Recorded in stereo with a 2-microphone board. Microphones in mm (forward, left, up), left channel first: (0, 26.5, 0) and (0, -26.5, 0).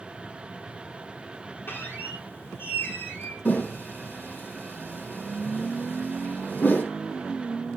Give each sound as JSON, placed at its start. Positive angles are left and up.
{"t": 1.7, "sound": "a squeak", "side_deg": 45, "distance_m": 3.0}
{"t": 3.5, "sound": "a whoosh", "side_deg": 35, "distance_m": 3.5}